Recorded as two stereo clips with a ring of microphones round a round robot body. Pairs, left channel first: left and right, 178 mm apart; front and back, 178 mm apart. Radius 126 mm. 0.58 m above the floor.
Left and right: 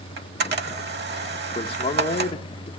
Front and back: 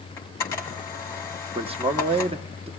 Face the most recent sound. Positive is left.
turn(degrees=140)